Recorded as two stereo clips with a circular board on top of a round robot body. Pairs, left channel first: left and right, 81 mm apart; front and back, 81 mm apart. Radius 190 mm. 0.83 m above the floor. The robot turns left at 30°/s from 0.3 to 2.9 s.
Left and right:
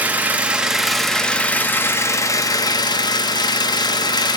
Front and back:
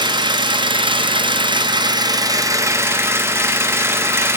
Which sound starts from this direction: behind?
An engine running, at 0.0 s.